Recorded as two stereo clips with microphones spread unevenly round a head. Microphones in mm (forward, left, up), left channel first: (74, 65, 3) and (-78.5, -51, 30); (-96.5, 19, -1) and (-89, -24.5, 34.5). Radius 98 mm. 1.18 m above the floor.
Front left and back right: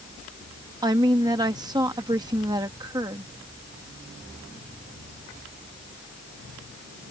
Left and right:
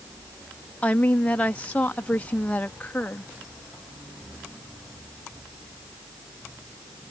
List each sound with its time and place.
0.8 s a woman speaking: 145° left